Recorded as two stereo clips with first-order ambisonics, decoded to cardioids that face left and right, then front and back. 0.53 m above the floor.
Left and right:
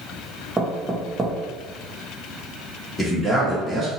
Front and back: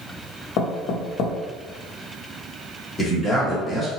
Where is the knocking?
10° right, 0.6 m.